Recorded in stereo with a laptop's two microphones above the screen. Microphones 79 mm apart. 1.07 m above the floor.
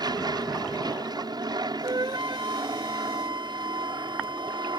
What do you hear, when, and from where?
0.0 s an aircraft: 60° right (ahead or behind)
1.8 s a flute: 70° right (ahead or behind)